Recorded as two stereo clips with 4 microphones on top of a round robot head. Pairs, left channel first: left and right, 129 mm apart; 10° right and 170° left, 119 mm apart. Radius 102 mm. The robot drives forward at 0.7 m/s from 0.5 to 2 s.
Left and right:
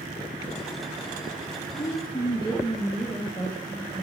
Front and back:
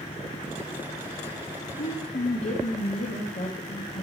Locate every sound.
1.8 s a woman speaking: 10° left, 1.2 m